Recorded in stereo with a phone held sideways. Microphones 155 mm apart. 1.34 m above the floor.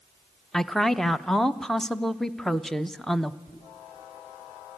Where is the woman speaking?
Centre (ahead or behind), 0.7 m.